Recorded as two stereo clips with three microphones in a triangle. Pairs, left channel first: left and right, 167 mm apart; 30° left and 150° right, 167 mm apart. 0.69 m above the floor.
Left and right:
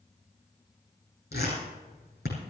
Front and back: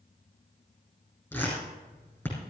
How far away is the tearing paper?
About 8 m.